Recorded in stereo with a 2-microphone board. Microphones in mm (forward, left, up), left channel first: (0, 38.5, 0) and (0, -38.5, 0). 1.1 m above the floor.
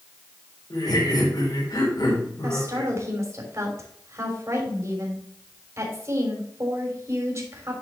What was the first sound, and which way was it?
Laughter, 60° left (ahead or behind).